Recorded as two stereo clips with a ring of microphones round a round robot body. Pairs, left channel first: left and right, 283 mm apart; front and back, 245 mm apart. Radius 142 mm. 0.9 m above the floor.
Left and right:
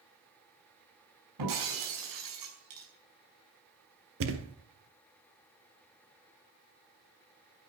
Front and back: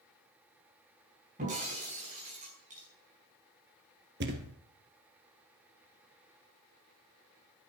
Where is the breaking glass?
110° right, 5.5 m.